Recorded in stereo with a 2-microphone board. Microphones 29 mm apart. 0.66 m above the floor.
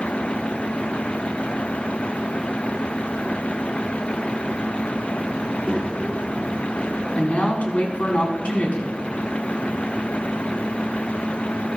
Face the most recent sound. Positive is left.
turn(degrees=60)  # may be behind; listen again after turning